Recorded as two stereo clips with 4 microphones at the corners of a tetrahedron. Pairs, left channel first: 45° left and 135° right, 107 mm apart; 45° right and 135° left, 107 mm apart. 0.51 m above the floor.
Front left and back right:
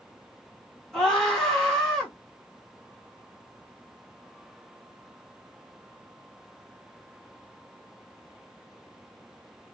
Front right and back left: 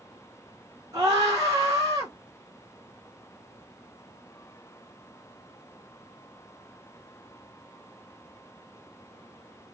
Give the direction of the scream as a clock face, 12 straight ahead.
8 o'clock.